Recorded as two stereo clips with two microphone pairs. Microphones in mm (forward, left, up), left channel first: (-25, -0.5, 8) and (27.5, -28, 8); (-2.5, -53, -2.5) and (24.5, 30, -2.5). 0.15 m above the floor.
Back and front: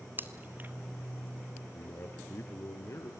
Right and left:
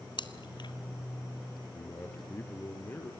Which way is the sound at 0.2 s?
80° right.